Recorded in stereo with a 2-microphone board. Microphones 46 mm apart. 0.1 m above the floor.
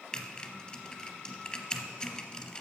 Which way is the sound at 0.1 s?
20° left (ahead or behind).